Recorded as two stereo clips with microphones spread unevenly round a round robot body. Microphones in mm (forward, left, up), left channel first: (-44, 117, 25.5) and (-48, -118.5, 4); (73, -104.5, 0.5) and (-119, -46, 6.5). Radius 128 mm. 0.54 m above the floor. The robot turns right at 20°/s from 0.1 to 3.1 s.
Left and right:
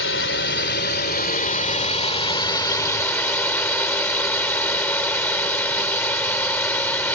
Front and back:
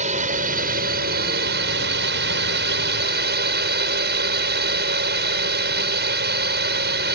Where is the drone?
110° left; by 7.1 s 170° left.